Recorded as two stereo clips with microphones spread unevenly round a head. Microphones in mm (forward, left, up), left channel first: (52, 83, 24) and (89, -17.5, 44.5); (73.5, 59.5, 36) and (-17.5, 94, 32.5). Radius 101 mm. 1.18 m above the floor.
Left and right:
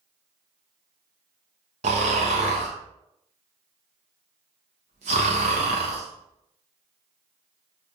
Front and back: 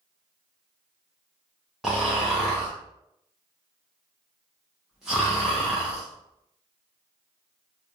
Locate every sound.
1.8 s snoring: 115° right, 0.6 m